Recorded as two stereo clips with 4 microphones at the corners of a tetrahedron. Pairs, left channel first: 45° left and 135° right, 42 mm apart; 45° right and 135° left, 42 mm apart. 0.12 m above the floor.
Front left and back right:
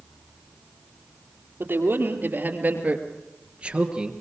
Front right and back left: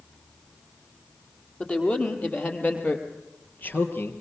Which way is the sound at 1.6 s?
105° right.